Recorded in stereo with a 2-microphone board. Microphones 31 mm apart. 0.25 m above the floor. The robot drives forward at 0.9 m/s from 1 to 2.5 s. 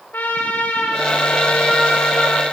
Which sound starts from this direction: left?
A trumpet, at 0.1 s.